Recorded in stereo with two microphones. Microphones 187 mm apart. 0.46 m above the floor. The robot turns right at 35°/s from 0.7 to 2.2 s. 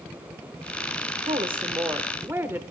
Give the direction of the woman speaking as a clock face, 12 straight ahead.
2 o'clock.